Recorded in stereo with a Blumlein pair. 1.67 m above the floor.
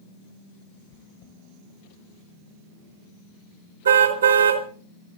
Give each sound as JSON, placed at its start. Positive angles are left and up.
{"t": 0.9, "sound": "chewing", "azimuth_deg": 55, "distance_m": 1.5}
{"t": 3.9, "sound": "a car horn", "azimuth_deg": -70, "distance_m": 3.0}